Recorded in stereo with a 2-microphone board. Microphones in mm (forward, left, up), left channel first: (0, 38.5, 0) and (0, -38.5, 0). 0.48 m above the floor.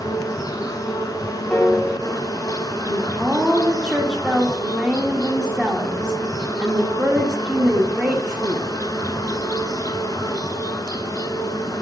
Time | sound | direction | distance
0.0 | an insect | 50° left (ahead or behind) | 0.8 m
1.5 | a piano | 20° left (ahead or behind) | 1.9 m
2.9 | a woman speaking | 10° right (ahead or behind) | 1.2 m